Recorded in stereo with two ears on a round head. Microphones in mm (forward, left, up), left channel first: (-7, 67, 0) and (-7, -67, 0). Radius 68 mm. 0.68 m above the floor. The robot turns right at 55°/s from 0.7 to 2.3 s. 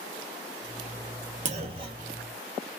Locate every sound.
1.4 s a clunk: 55° right, 0.6 m; by 2.2 s 15° right, 0.6 m